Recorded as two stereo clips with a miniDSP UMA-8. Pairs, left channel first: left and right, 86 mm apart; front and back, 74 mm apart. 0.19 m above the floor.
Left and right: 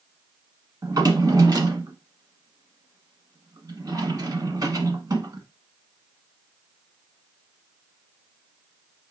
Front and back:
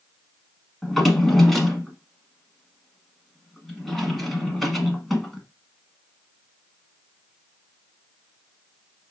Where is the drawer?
90° right, 0.9 m.